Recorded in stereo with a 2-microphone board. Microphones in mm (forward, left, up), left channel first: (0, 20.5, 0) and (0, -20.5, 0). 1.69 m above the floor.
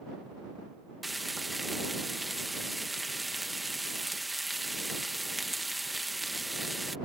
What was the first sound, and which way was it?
Frying, centre (ahead or behind).